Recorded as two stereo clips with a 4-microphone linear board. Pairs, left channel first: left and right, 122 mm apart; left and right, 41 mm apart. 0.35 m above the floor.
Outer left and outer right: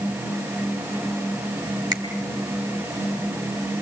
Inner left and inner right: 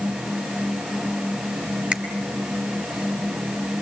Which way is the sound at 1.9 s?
35° right (ahead or behind).